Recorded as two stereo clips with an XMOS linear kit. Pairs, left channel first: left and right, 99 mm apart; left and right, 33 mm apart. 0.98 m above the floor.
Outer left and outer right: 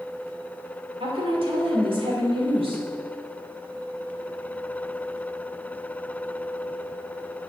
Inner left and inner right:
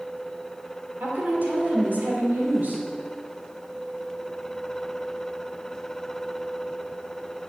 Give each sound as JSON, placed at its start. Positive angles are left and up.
{"t": 1.0, "sound": "a woman speaking", "side_deg": -65, "distance_m": 2.5}